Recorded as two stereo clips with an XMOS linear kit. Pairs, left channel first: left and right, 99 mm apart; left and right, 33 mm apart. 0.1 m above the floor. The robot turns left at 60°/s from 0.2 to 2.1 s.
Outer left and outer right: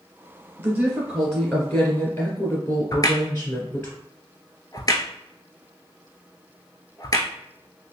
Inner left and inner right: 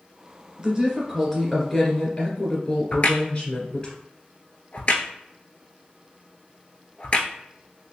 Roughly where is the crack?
Left.